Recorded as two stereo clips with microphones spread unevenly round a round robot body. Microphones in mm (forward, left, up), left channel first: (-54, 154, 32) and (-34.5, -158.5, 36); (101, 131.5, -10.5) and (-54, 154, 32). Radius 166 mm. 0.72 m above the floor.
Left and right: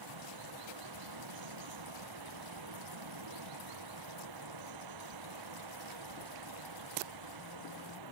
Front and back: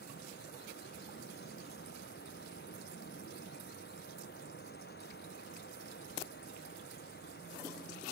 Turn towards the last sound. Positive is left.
turn(degrees=-60)